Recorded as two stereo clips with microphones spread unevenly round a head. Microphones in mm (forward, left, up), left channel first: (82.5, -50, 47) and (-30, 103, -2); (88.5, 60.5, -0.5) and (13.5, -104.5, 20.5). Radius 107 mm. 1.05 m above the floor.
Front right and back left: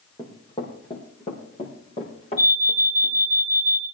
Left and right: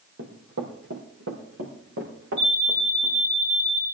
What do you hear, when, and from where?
0.2 s running footsteps: 115° right, 2 m; by 3.2 s 110° right, 4.5 m
2.4 s an alarm: 85° right, 9.5 m